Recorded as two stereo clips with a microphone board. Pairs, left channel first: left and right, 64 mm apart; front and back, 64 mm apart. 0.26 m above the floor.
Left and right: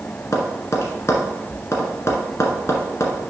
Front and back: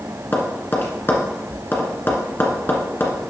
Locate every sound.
0.3 s tapping: 50° left, 1.7 m